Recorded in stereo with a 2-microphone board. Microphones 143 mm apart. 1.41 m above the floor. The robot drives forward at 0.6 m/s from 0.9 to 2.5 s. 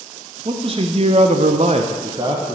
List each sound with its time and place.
0.5 s a man speaking: 40° right (ahead or behind), 0.6 m; by 2.6 s 30° right (ahead or behind), 0.8 m